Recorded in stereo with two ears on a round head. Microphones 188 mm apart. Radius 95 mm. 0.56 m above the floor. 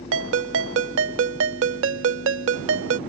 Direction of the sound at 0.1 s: 60° right (ahead or behind).